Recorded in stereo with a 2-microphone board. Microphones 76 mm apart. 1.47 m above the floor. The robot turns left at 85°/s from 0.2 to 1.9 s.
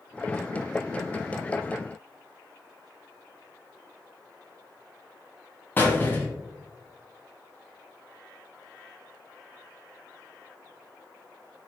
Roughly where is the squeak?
Left.